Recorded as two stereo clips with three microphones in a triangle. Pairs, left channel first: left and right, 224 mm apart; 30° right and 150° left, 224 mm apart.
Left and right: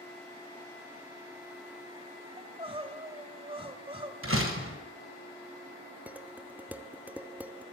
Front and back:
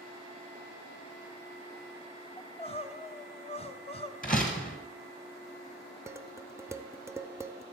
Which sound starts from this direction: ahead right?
Crying, at 2.4 s.